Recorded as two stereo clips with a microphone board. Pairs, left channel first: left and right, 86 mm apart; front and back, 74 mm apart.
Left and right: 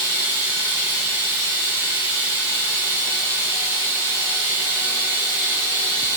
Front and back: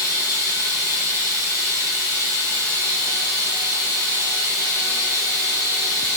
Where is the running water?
150° right, 4 m.